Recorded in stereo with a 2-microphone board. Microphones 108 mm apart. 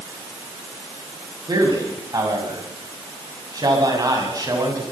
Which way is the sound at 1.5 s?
40° right (ahead or behind).